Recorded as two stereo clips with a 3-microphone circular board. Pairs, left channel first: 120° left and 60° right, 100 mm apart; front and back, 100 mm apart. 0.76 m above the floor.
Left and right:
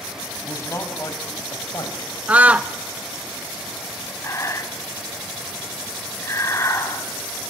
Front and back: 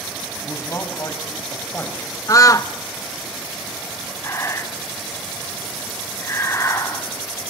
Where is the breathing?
60° left, 1.8 m.